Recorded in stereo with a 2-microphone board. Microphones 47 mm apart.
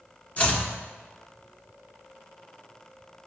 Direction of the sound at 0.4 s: 25° left (ahead or behind).